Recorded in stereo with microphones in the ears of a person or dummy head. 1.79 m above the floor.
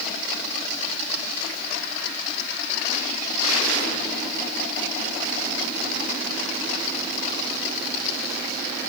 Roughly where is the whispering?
I don't hear whispering.